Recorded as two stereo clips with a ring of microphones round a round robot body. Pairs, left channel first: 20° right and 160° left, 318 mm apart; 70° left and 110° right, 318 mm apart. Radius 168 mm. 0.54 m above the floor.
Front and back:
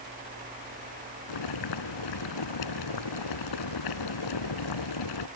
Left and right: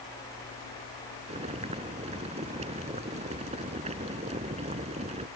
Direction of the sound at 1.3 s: 40° right.